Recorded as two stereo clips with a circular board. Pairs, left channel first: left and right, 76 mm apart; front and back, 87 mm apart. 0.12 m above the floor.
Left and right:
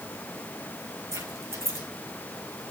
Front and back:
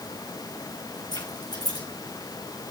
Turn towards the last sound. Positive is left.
turn(degrees=-40)